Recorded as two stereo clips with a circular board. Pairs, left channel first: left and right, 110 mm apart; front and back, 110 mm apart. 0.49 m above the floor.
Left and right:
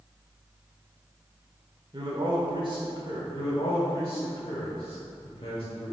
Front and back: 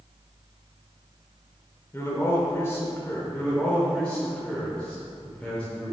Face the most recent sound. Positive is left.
turn(degrees=80)